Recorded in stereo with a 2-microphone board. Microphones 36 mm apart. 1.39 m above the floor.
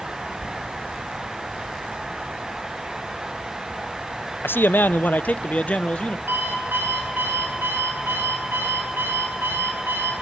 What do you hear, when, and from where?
4.4 s a man speaking: 80° left, 0.6 m; by 6.2 s 30° left (ahead or behind), 1.4 m
6.3 s an alarm clock: 80° right, 8 m